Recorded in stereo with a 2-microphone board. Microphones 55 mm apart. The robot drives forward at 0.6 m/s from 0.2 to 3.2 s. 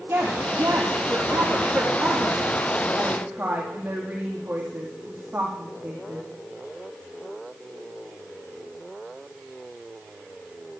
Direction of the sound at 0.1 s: 50° right (ahead or behind).